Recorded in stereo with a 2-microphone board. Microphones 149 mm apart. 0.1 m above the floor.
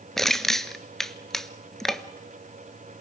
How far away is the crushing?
About 0.7 m.